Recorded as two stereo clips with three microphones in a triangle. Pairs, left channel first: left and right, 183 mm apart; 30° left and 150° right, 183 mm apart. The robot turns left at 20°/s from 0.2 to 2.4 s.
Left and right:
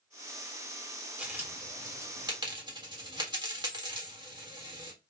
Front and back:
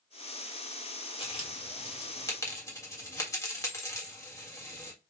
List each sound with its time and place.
1.2 s a dropped coin: 10° right, 1.6 m; by 4.9 s 35° right, 1.6 m